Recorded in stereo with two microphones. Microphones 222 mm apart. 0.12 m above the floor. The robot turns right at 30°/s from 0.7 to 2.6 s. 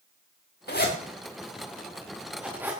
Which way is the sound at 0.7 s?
50° left (ahead or behind).